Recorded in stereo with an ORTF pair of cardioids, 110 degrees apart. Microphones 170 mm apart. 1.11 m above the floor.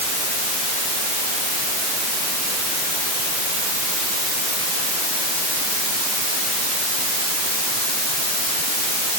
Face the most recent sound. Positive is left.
No sound to turn to.